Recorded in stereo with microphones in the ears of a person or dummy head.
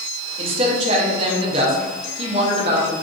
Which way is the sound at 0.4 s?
30° right (ahead or behind).